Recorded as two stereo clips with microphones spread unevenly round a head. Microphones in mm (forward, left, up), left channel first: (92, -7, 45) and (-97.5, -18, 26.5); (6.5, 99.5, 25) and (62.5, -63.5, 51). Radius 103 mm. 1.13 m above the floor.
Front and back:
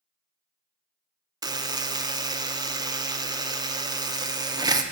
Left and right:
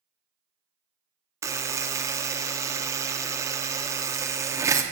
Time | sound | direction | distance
1.4 | a buzzer | 145° right | 0.6 m